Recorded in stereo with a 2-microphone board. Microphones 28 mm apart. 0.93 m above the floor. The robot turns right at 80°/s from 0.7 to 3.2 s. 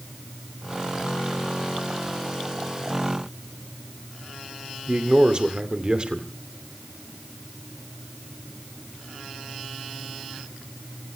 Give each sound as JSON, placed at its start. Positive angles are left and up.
{"t": 4.9, "sound": "a man speaking", "side_deg": -40, "distance_m": 2.5}